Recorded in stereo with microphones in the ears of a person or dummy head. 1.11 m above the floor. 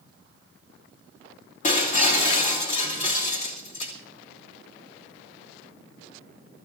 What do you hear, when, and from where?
1.6 s breaking glass: 40° left (ahead or behind), 2.5 m